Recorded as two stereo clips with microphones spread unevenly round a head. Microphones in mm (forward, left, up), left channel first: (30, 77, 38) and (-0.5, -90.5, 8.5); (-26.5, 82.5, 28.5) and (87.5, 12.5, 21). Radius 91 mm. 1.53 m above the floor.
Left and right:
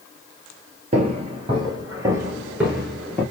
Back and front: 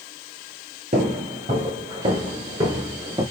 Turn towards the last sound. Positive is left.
turn(degrees=25)